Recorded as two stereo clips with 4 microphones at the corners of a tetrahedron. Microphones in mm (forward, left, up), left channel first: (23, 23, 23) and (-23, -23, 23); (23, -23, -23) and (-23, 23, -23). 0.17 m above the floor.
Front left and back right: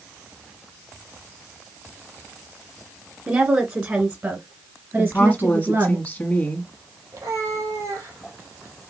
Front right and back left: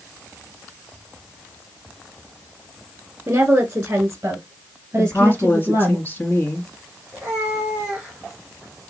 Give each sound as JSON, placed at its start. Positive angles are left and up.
{"t": 3.3, "sound": "a woman speaking", "azimuth_deg": -175, "distance_m": 1.3}
{"t": 5.0, "sound": "a woman speaking", "azimuth_deg": -5, "distance_m": 1.8}
{"t": 7.1, "sound": "a cat meowing", "azimuth_deg": -155, "distance_m": 2.5}